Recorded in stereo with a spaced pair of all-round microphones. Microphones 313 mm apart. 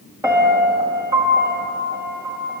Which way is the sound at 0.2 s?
10° right (ahead or behind).